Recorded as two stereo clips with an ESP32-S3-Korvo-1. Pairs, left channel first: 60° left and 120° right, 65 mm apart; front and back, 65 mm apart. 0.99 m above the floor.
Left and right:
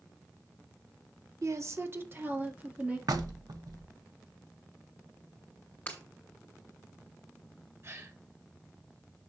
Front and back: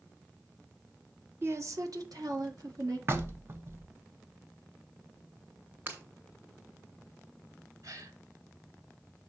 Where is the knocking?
130° right, 0.9 m.